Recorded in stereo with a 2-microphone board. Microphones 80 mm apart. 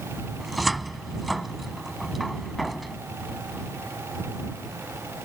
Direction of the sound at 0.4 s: Centre (ahead or behind).